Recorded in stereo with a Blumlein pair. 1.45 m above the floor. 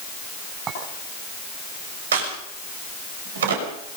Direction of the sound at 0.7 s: 30° right.